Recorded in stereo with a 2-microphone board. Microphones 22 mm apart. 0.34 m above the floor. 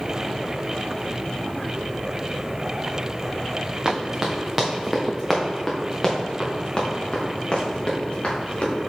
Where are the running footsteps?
35° right (ahead or behind), 1.7 m; by 8.7 s 50° left (ahead or behind), 3 m.